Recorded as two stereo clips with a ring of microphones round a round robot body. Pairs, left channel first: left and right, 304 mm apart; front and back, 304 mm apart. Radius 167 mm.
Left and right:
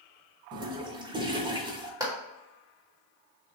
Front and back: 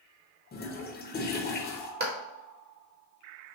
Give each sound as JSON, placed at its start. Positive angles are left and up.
{"t": 0.5, "sound": "a toilet flushing", "azimuth_deg": -25, "distance_m": 1.0}
{"t": 2.0, "sound": "a clap", "azimuth_deg": -160, "distance_m": 1.3}